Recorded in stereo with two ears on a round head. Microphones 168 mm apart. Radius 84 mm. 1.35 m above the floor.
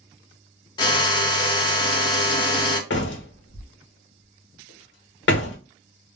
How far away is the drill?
About 0.8 m.